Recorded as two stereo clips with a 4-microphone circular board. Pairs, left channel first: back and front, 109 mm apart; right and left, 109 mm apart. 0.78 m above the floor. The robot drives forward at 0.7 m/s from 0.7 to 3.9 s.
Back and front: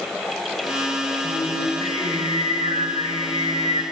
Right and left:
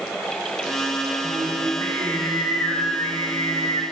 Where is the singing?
20° right, 3 m; by 3.8 s 40° right, 1.6 m.